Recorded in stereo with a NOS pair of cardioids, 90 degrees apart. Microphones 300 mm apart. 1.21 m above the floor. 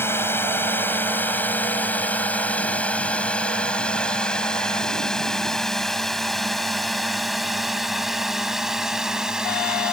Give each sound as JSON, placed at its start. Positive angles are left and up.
{"t": 0.0, "sound": "a drone", "azimuth_deg": 5}